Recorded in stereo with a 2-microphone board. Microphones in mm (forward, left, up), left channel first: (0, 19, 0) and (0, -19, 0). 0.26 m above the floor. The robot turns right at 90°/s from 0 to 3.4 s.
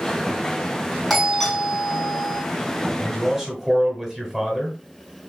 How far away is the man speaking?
About 1.5 m.